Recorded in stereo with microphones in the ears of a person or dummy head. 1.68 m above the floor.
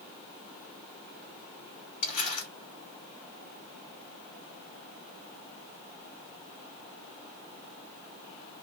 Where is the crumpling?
35° left (ahead or behind), 1.0 m.